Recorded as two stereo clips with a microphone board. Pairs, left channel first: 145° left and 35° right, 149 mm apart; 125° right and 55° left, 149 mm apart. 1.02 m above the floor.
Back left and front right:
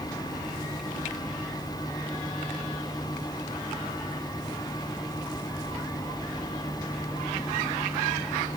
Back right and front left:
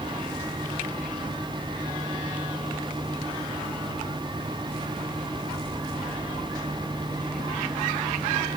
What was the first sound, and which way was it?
Only background noise.